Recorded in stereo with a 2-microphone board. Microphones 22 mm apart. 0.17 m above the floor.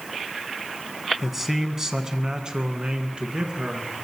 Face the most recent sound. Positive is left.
turn(degrees=-55)  # may be behind; listen again after turning